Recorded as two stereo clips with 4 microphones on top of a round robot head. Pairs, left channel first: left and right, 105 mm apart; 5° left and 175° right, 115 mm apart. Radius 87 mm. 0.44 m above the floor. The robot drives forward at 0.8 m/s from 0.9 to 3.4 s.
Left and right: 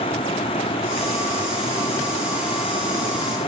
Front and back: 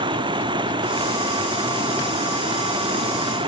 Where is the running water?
140° left; by 3.5 s 145° left.